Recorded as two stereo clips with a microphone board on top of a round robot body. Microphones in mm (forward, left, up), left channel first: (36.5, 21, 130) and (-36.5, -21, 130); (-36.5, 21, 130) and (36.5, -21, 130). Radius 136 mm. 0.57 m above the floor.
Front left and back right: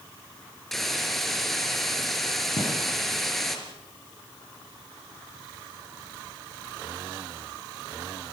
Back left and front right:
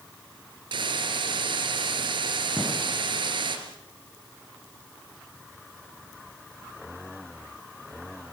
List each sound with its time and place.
0.7 s a hiss: 55° right, 3 m
2.6 s a gunshot: 65° left, 7 m